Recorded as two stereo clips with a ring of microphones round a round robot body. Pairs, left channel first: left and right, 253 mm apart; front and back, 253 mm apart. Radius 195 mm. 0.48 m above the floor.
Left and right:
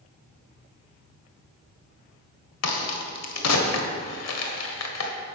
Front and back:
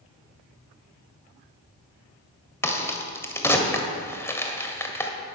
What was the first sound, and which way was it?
A crack, 80° left.